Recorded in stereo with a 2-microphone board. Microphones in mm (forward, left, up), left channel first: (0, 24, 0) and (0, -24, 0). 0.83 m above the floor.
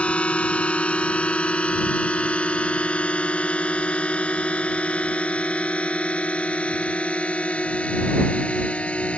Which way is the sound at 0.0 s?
25° left (ahead or behind).